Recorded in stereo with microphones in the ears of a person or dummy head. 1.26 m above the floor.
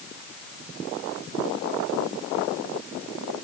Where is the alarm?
I don't hear an alarm.